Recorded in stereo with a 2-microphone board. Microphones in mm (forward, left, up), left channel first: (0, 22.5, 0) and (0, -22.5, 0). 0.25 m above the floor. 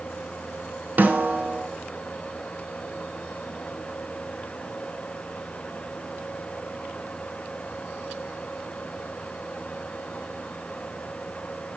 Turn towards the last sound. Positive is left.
turn(degrees=-40)  # may be behind; listen again after turning